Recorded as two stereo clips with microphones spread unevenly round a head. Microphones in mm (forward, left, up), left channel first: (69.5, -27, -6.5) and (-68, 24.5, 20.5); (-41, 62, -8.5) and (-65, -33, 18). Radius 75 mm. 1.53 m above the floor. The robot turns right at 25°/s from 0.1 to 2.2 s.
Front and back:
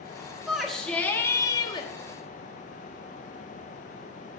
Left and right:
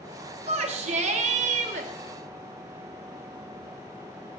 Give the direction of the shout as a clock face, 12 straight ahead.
4 o'clock.